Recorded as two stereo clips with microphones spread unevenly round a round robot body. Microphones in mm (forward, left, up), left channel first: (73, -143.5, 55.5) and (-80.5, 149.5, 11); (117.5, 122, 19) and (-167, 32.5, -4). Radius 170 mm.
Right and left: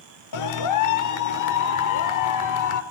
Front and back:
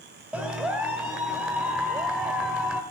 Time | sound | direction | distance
0.3 | a clap | 80° right | 1.4 m